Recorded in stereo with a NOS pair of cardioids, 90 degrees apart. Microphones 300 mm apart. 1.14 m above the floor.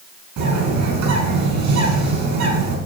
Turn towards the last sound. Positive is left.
turn(degrees=-70)